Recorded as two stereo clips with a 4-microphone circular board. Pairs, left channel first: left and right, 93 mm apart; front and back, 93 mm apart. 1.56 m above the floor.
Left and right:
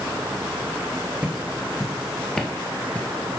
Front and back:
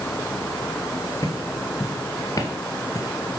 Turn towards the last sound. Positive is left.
turn(degrees=30)